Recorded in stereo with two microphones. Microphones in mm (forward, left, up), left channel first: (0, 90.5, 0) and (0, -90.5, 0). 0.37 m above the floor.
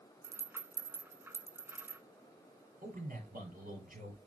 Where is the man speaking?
50° right (ahead or behind), 7 m.